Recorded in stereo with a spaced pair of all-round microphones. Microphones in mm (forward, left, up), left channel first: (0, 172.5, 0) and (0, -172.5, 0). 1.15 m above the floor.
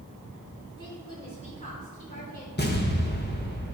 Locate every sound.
0.8 s a woman speaking: 15° left (ahead or behind), 4.5 m; by 2.5 s 30° left (ahead or behind), 5 m
2.6 s an explosion: 30° left (ahead or behind), 1.4 m